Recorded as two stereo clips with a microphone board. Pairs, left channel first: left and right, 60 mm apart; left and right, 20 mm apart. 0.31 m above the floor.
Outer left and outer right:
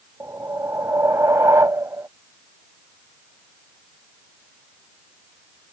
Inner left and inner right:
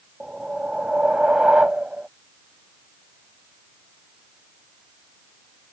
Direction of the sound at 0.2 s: 65° right (ahead or behind).